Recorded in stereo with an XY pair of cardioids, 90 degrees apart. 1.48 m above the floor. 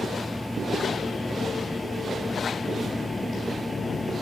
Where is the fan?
10° left.